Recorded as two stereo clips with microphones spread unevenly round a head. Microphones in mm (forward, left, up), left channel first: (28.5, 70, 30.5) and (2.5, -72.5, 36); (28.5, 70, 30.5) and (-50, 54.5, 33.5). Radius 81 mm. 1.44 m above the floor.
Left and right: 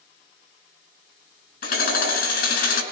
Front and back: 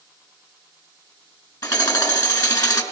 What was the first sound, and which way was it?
Hammering, 55° left.